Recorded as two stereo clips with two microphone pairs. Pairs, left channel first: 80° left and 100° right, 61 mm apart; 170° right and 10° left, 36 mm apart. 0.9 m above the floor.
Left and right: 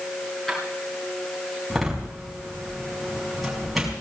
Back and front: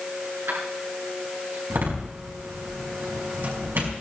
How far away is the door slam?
About 5.5 m.